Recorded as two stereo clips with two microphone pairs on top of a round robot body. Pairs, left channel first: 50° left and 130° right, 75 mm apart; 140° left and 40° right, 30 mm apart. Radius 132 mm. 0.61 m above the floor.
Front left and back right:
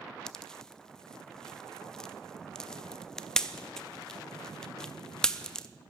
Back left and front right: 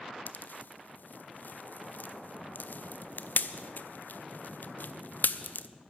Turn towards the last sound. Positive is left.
turn(degrees=135)